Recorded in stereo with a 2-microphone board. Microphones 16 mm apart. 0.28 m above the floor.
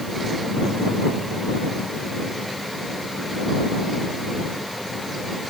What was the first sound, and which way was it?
Only background noise.